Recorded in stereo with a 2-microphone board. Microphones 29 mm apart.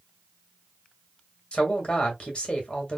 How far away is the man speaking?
About 1.8 m.